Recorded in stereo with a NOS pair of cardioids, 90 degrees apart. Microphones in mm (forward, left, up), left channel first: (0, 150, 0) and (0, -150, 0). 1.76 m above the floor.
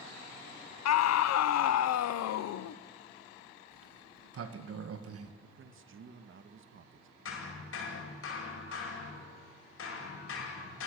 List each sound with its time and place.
0.8 s a scream: 65° left, 1.3 m
3.7 s a sliding door: 55° right, 2 m
5.4 s a man speaking: 45° right, 2 m
7.2 s hammering: 50° left, 8 m